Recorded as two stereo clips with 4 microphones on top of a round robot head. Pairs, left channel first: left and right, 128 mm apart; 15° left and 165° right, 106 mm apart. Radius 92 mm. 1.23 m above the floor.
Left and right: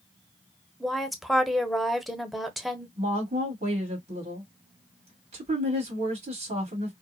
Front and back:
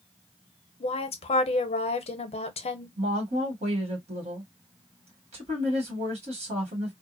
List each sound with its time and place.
0.8 s a woman speaking: straight ahead, 0.8 m
3.0 s a woman speaking: 135° right, 1.6 m